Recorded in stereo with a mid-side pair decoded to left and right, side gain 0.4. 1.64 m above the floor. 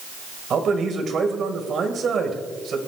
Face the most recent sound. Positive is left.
turn(degrees=-60)